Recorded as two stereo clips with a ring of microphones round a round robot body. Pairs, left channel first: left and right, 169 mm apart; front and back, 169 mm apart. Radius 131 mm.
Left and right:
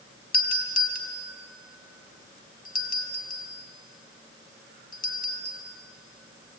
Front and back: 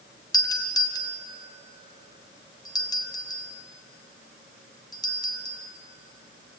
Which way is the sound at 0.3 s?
65° left.